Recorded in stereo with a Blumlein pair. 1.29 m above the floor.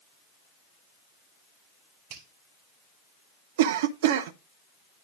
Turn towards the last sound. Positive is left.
turn(degrees=-55)